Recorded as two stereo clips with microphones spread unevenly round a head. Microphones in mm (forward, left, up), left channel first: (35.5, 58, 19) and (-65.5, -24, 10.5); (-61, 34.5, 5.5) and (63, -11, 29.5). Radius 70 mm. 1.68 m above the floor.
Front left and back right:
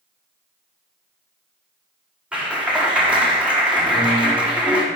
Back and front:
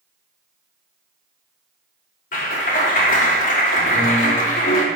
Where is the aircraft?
No aircraft in this recording.